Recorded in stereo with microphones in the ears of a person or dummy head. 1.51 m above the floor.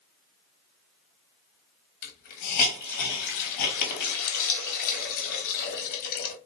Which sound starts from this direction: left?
A hiss, at 2.0 s.